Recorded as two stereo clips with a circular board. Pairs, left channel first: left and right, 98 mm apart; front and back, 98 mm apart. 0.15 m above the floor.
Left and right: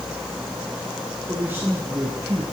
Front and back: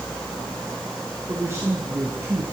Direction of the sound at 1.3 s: 140° right.